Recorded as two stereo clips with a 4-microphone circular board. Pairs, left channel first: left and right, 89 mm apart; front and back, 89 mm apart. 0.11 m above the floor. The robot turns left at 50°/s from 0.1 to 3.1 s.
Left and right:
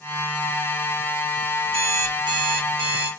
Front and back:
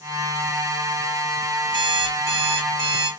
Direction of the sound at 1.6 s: 20° right.